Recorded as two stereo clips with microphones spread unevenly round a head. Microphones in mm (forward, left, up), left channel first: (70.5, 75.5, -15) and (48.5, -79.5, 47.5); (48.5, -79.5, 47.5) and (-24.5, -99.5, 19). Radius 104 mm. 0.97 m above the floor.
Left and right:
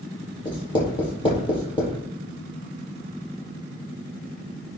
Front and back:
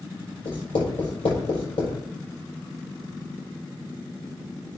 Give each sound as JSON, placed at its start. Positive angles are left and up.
{"t": 0.5, "sound": "writing", "azimuth_deg": 20, "distance_m": 5.0}